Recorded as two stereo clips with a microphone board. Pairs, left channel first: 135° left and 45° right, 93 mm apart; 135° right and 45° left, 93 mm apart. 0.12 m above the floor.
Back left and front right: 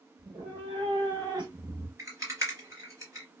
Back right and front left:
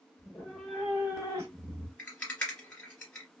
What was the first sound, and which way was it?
A cat meowing, 60° right.